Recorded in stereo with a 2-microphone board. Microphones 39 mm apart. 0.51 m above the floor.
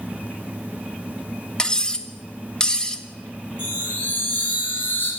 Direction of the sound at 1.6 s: 20° left (ahead or behind).